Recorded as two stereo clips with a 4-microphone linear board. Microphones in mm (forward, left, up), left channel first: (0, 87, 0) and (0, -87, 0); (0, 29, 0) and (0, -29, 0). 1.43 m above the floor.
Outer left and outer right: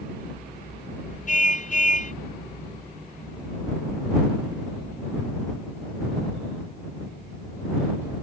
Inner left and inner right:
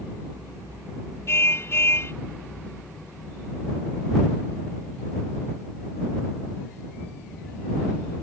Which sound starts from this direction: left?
A car horn, at 1.3 s.